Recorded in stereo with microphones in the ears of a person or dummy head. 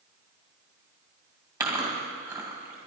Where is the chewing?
15° right (ahead or behind), 2.5 m.